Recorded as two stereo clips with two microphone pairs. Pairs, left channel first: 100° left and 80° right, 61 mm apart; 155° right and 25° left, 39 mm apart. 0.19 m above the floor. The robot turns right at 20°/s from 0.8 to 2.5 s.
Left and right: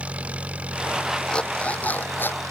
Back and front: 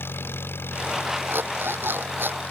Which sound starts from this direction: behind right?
An engine running, at 0.0 s.